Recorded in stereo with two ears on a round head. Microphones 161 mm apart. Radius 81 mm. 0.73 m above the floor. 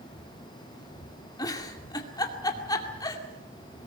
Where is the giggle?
20° left (ahead or behind), 2 m.